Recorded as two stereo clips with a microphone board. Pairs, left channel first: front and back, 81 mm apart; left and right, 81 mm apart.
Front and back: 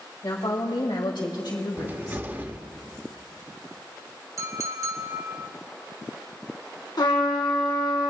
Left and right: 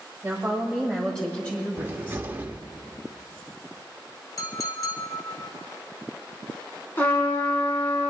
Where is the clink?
135° left, 1.4 m.